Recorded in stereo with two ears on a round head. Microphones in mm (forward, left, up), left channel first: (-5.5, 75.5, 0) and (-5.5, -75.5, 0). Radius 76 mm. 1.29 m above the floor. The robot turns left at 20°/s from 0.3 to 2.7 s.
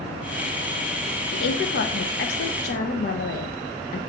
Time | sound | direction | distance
1.3 | a woman speaking | 75° left (ahead or behind) | 0.6 m